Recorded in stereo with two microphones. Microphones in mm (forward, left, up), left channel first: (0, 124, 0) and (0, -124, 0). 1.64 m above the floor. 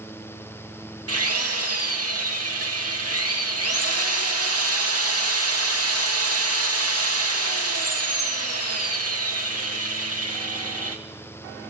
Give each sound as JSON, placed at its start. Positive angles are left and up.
{"t": 1.1, "sound": "a drill", "side_deg": -70, "distance_m": 3.0}